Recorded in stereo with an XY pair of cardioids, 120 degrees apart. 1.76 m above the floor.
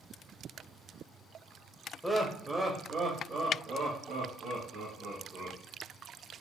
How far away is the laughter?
About 0.8 m.